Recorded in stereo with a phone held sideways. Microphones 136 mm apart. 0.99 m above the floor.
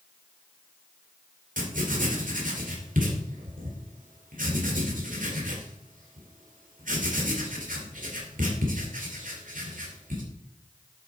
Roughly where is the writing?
Right.